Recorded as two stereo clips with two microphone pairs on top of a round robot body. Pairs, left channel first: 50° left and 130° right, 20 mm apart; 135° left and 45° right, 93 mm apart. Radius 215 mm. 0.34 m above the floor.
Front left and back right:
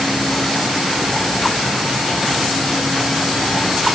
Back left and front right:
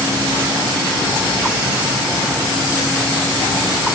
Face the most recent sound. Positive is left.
No sound to turn to.